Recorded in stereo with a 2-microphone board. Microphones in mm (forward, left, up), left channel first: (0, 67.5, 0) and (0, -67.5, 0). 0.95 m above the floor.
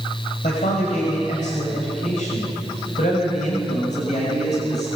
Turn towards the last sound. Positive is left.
turn(degrees=65)  # may be behind; listen again after turning